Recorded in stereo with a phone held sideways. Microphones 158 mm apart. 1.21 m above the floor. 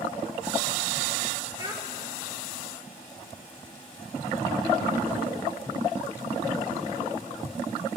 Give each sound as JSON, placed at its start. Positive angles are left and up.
{"t": 1.6, "sound": "a child speaking", "side_deg": -25, "distance_m": 2.5}